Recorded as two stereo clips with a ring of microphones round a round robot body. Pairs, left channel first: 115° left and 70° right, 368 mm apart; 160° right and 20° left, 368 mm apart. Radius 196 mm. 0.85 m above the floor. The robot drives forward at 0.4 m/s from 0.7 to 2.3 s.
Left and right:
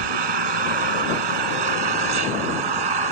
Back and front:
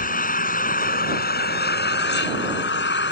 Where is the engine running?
90° right; by 3.1 s 95° right.